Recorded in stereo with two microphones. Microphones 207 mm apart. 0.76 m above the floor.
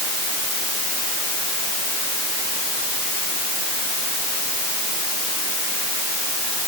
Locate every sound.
Only background noise.